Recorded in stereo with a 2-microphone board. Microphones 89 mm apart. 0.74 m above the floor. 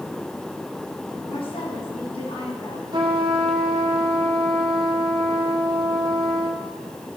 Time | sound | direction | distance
1.3 | a woman speaking | 80° left | 6 m
2.9 | a trumpet | 60° right (ahead or behind) | 1.5 m